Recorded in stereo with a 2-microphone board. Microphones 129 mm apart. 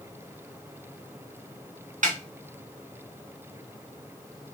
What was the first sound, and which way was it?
A snare drum, 80° right.